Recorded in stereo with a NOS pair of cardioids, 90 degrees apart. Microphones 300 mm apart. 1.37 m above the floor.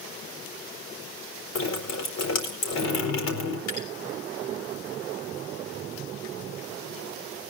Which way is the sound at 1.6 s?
60° left.